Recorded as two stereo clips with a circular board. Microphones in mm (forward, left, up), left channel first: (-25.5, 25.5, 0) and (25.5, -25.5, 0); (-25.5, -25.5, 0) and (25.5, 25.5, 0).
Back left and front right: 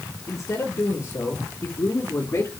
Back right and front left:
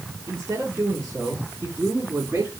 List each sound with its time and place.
0.3 s a man speaking: 105° left, 6 m; by 2.6 s 100° left, 4.5 m